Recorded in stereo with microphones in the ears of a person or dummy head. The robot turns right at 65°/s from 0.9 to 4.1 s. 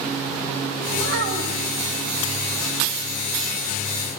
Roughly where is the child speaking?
Right.